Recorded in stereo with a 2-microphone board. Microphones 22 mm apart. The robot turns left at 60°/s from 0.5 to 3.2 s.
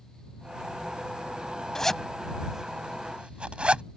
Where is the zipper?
25° left (ahead or behind); by 3.8 s 55° right (ahead or behind).